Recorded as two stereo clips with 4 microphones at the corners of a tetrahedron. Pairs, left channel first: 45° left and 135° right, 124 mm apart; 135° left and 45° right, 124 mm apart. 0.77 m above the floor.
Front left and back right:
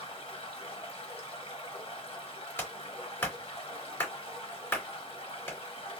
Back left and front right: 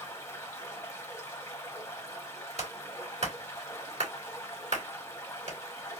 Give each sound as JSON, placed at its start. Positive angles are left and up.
{"t": 0.0, "sound": "running water", "azimuth_deg": 75, "distance_m": 1.3}
{"t": 2.6, "sound": "a clap", "azimuth_deg": -25, "distance_m": 2.5}